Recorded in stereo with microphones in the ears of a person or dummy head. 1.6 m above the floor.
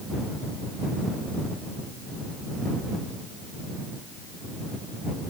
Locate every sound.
Only background noise.